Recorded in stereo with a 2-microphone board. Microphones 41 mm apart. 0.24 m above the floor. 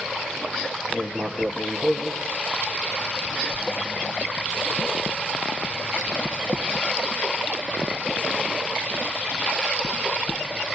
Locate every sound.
0.9 s writing: 25° left (ahead or behind), 1.9 m